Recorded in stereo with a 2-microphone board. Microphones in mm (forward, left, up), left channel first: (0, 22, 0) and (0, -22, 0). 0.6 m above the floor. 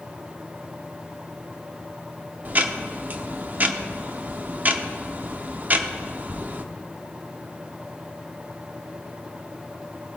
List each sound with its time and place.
2.5 s ticking: 40° right (ahead or behind), 0.8 m